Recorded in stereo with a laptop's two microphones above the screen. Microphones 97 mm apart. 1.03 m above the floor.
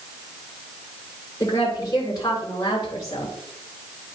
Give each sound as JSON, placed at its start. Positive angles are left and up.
{"t": 1.4, "sound": "a woman speaking", "side_deg": 35, "distance_m": 3.5}